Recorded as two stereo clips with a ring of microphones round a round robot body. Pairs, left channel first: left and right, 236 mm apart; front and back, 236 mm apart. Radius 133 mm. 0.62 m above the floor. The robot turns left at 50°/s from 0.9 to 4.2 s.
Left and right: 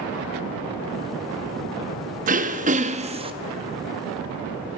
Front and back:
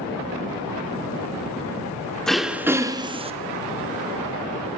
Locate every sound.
2.3 s throat clearing: 85° right, 0.6 m; by 3.3 s 140° right, 0.6 m